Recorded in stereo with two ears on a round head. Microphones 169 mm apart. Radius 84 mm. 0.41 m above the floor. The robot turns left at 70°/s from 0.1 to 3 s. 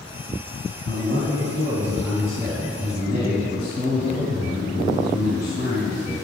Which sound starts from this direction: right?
A man speaking, at 0.8 s.